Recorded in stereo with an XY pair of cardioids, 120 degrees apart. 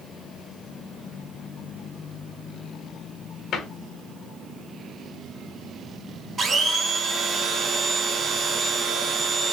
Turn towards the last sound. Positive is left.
turn(degrees=-35)